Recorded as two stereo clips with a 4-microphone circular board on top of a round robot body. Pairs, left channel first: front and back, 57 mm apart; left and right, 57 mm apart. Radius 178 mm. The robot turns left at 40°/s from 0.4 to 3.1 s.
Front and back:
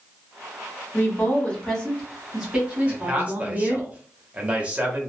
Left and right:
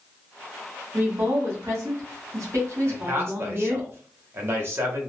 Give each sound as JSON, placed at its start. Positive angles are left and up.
{"t": 0.9, "sound": "a woman speaking", "azimuth_deg": -45, "distance_m": 2.5}
{"t": 2.9, "sound": "a man speaking", "azimuth_deg": -110, "distance_m": 1.6}